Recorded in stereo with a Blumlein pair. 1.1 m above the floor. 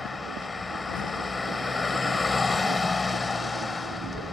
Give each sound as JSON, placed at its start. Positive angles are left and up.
{"t": 0.0, "sound": "a vehicle", "azimuth_deg": 10}